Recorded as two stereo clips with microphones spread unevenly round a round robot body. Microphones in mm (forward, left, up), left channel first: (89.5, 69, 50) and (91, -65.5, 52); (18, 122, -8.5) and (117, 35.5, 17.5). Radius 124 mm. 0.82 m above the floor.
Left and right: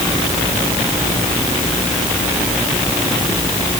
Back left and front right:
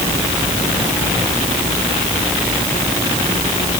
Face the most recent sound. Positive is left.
No sound to turn to.